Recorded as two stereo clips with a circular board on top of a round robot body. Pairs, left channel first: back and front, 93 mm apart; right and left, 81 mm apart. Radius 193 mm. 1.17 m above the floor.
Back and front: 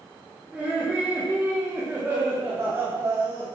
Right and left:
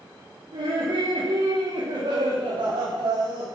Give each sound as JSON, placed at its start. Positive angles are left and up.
{"t": 0.5, "sound": "laughter", "azimuth_deg": 80, "distance_m": 5.0}